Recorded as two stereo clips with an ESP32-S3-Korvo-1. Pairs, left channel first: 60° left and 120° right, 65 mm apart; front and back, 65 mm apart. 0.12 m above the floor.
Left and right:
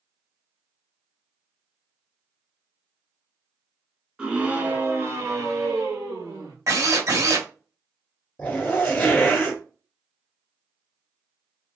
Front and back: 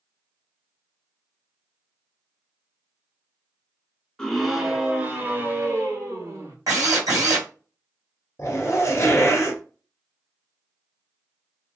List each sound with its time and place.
4.2 s a scream: 65° right, 1.1 m; by 6.5 s 140° right, 2 m
6.7 s a drill: 155° right, 2.5 m
8.4 s a zipper: 10° left, 1.8 m